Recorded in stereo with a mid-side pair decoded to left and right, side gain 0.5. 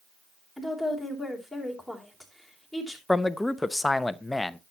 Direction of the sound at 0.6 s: 5° right.